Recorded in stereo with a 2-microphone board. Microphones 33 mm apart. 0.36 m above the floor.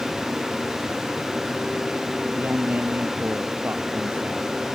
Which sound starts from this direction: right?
A woman speaking, at 2.4 s.